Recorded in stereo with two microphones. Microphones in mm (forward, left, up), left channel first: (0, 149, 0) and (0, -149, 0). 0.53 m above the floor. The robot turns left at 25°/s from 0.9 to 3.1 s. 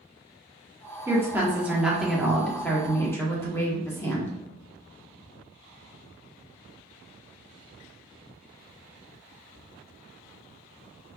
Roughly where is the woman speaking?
Centre.